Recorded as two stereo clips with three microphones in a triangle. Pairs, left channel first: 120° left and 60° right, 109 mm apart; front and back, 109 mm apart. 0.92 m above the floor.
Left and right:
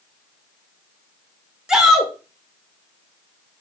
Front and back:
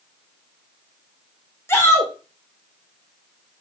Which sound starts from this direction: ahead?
A shout, at 1.7 s.